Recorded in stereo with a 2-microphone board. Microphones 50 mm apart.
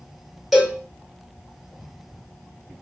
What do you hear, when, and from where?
0.5 s a cowbell: 5° right (ahead or behind), 1.2 m